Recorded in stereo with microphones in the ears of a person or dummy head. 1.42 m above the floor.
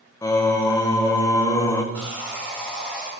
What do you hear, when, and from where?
0.2 s singing: 20° left (ahead or behind), 0.6 m
1.9 s sawing: 10° left (ahead or behind), 3 m